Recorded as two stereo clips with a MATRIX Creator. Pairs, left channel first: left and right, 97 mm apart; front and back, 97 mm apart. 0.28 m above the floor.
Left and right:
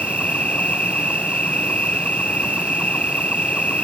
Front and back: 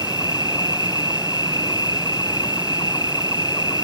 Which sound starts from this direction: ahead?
An insect, at 0.0 s.